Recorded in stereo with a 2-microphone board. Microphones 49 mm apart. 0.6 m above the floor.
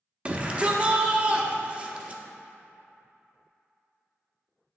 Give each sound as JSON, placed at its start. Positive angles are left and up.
{"t": 0.2, "sound": "a shout", "side_deg": -25, "distance_m": 0.6}